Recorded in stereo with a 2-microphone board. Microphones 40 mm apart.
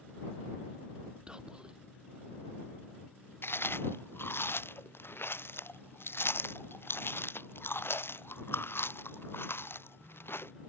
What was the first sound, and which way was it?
Whispering, 20° right (ahead or behind).